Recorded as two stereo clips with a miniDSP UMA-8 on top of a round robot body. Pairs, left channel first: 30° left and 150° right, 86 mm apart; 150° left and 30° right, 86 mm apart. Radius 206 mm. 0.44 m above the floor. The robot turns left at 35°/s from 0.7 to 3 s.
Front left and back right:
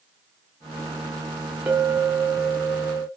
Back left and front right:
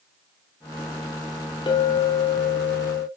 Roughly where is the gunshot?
No gunshot in this recording.